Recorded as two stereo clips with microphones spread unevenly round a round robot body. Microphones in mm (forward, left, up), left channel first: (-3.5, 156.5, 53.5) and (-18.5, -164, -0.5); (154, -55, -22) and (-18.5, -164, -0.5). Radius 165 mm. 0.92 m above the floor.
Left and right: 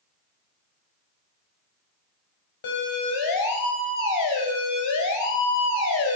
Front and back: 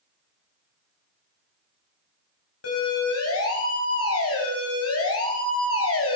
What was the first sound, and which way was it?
A siren, 60° left.